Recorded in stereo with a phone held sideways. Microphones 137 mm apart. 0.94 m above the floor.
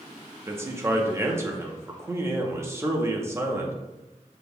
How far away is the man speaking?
About 0.7 m.